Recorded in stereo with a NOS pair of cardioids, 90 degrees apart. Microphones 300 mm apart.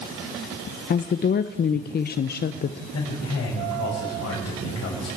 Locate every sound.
0.9 s a woman speaking: 35° left, 0.7 m
2.9 s a man speaking: 55° left, 6.5 m